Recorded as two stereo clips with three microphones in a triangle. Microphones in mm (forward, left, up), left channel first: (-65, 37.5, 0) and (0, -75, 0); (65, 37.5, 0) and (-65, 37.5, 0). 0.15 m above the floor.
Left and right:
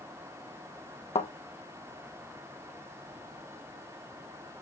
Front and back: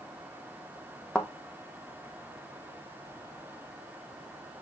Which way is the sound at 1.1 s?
80° left.